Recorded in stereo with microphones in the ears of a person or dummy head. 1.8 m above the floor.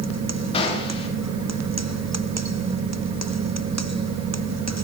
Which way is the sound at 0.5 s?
35° left (ahead or behind).